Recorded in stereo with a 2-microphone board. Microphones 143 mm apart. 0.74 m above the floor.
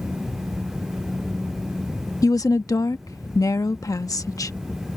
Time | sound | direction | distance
2.2 | a woman speaking | 25° left (ahead or behind) | ?